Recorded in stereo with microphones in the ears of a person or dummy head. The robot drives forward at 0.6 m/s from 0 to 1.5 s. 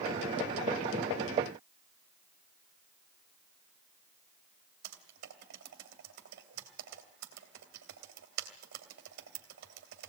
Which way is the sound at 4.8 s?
55° right (ahead or behind).